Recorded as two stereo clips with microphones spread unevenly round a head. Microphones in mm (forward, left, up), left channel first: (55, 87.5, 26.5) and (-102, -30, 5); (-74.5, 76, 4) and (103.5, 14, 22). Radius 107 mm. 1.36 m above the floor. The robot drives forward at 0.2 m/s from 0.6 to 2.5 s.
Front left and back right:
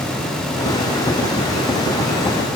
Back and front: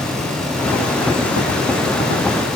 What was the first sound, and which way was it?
Only background noise.